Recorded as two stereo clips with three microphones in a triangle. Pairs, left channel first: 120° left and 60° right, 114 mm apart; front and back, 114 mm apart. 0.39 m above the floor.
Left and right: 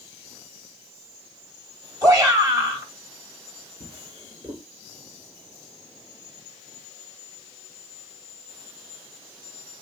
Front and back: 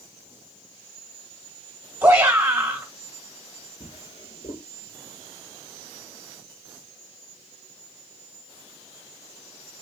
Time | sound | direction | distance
2.0 | a shout | 110° right | 1.9 m
3.8 | a drawer | 20° right | 2.5 m